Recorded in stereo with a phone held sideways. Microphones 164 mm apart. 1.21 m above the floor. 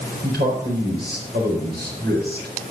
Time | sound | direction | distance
0.2 | a man speaking | 90° right | 4.5 m